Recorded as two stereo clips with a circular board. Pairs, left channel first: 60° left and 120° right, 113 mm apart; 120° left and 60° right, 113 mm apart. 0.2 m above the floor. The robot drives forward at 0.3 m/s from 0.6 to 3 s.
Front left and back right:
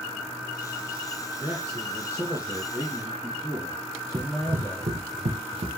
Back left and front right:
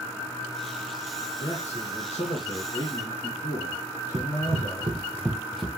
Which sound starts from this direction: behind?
A man speaking, at 1.4 s.